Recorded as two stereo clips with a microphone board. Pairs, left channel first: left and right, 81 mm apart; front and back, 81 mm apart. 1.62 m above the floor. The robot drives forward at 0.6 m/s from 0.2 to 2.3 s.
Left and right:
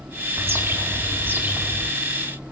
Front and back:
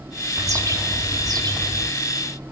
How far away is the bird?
About 1.6 m.